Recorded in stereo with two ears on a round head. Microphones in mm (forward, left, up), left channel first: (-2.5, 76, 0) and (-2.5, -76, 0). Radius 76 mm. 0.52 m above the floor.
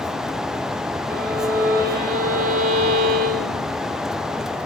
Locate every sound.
1.1 s a violin: 55° right (ahead or behind), 1.9 m